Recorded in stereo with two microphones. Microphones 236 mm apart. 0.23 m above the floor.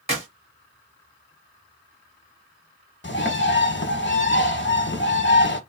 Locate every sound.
0.1 s a clap: 25° right (ahead or behind), 2.0 m
3.0 s a bird: 50° left (ahead or behind), 0.8 m